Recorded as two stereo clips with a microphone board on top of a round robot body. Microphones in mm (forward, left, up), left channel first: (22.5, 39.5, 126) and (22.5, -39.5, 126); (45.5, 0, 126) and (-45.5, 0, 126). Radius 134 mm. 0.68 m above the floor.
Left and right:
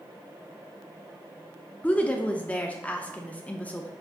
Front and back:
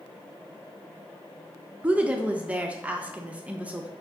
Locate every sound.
1.8 s a woman speaking: 130° left, 0.5 m